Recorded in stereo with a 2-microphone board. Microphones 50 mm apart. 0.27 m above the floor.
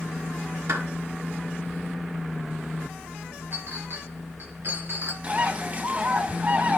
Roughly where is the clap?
Right.